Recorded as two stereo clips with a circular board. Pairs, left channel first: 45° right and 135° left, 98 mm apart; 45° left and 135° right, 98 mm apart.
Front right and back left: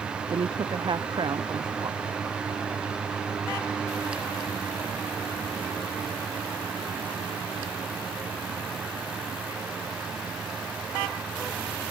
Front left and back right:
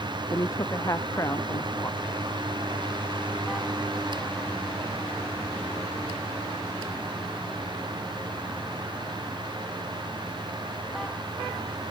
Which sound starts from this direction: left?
A woman speaking, at 0.3 s.